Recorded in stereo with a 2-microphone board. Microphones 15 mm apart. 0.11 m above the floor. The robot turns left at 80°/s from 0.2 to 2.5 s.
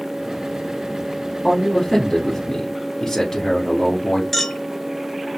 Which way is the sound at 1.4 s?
15° left (ahead or behind).